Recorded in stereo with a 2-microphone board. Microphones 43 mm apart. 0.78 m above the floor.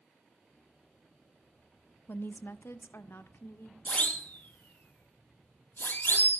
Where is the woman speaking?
50° left (ahead or behind), 0.9 m; by 3.8 s 60° left (ahead or behind), 2 m.